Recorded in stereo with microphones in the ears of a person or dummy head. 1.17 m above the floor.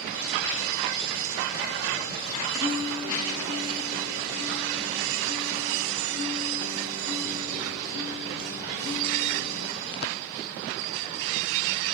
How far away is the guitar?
About 5.5 m.